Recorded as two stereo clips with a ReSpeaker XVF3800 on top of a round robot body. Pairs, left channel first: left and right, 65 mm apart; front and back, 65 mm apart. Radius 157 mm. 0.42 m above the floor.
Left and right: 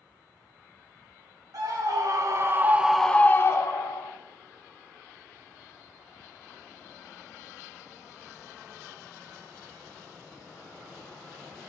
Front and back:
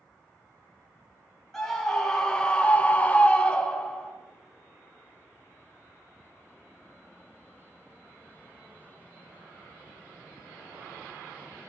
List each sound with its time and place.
1.5 s a scream: 85° right, 1.7 m; by 4.1 s 75° left, 1.5 m